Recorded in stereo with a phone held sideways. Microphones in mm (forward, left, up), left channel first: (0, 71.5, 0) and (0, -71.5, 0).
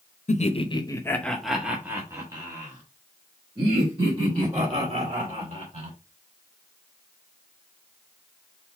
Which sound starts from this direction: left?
Laughter, at 0.3 s.